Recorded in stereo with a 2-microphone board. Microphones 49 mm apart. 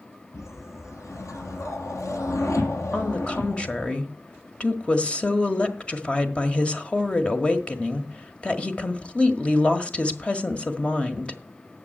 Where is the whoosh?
85° left, 2.5 m.